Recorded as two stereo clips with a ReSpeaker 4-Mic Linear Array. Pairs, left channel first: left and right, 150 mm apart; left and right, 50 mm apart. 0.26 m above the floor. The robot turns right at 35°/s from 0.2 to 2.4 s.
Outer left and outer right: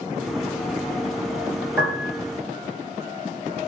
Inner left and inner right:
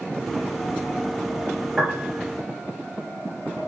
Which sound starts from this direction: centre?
A piano, at 1.8 s.